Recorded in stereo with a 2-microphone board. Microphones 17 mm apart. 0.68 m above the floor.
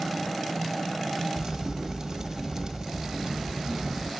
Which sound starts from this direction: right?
A crack, at 1.4 s.